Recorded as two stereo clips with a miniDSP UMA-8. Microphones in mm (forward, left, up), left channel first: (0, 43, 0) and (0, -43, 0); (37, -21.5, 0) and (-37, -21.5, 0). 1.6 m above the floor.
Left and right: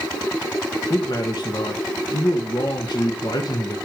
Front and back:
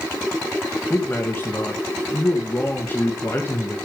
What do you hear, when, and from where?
0.9 s a man speaking: 60° left, 1.6 m